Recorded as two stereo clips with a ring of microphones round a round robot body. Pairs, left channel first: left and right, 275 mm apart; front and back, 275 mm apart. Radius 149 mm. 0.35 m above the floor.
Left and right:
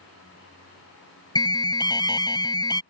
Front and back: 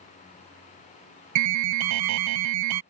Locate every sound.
1.4 s an alarm: 165° left